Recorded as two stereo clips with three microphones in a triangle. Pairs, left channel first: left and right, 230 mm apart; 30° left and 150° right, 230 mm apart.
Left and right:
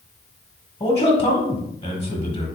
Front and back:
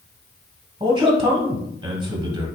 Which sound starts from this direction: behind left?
A man speaking, at 0.8 s.